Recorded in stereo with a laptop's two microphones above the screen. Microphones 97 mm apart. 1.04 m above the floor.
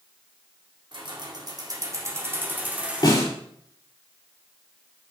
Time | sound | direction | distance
0.9 | keys jangling | 55° right (ahead or behind) | 2.0 m
3.0 | a snare drum | 45° left (ahead or behind) | 4 m